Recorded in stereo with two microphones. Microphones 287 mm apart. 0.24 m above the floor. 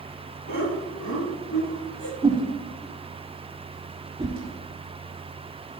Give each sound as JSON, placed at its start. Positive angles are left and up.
{"t": 0.5, "sound": "laughter", "side_deg": 75, "distance_m": 4.0}
{"t": 2.2, "sound": "a whoosh", "side_deg": -15, "distance_m": 4.0}